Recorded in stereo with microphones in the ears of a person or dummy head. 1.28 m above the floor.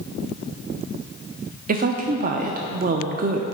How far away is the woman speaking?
About 0.6 m.